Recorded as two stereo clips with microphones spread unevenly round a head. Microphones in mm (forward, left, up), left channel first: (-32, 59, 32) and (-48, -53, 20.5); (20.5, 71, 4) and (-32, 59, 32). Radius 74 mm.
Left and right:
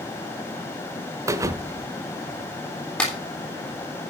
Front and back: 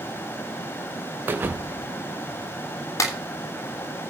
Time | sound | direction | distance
1.3 | a thud | 160° right | 1.0 m
3.0 | a clap | straight ahead | 3 m